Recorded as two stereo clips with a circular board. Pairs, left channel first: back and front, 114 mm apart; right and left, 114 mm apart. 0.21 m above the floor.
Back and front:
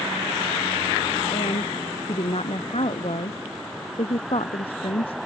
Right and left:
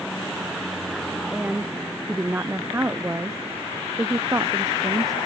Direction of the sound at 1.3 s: 165° left.